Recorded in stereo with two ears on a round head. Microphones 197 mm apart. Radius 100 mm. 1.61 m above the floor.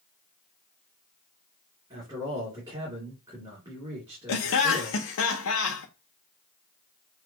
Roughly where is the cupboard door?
I don't hear a cupboard door.